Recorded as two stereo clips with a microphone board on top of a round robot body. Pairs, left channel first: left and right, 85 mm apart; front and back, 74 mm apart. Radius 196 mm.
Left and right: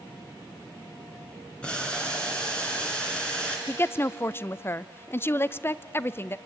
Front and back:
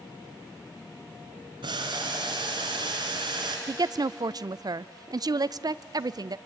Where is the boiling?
170° left, 2.5 m.